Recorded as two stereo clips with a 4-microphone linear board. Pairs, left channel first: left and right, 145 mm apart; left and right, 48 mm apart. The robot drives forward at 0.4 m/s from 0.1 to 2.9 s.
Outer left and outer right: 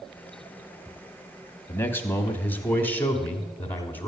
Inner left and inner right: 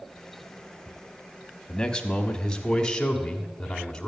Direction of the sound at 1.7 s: 15° left (ahead or behind).